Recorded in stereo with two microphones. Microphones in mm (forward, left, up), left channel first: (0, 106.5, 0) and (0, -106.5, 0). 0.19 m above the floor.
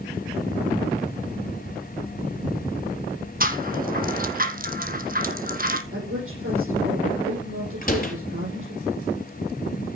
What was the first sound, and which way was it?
A rattle, 45° right (ahead or behind).